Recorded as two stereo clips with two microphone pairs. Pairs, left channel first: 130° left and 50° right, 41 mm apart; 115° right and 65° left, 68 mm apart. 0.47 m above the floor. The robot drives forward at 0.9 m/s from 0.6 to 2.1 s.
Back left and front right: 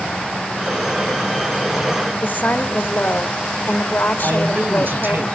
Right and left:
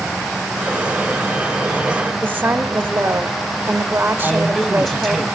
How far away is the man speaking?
About 2.5 m.